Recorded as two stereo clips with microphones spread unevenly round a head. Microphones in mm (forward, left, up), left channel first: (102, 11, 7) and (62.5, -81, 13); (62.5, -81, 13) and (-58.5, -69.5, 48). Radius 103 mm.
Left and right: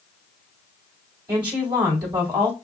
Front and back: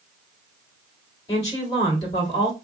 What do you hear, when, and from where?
1.3 s a woman speaking: 65° right, 4 m